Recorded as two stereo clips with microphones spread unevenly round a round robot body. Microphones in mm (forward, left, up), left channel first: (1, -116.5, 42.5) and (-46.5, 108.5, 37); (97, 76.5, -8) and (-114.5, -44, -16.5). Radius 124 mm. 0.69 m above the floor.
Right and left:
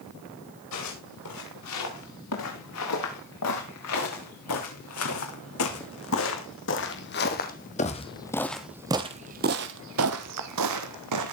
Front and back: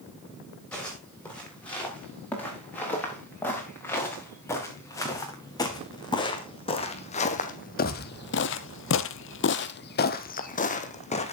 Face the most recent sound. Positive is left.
turn(degrees=95)